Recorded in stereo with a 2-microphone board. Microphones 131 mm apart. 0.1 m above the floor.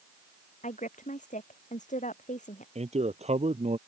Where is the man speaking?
55° right (ahead or behind).